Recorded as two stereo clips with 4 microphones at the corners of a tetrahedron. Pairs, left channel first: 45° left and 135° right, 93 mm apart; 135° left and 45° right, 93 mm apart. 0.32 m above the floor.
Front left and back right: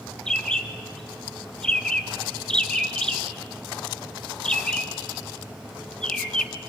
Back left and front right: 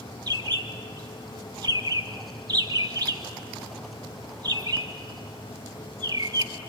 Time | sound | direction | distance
0.3 | a bird | 35° right | 1.1 m